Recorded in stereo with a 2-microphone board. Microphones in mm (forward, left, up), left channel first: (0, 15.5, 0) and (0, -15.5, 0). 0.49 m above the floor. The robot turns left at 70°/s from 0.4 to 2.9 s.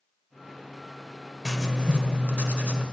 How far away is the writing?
About 1.4 m.